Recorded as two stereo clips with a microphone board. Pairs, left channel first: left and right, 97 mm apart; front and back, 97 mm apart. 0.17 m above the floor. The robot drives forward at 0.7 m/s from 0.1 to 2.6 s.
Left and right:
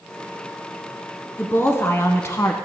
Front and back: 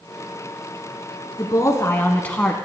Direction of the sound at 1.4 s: 30° left.